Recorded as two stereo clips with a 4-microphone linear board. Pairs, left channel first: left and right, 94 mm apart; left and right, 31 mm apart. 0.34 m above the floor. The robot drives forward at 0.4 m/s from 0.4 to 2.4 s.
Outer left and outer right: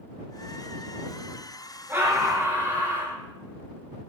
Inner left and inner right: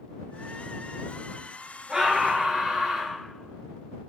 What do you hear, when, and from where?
1.9 s a scream: 25° right (ahead or behind), 5.5 m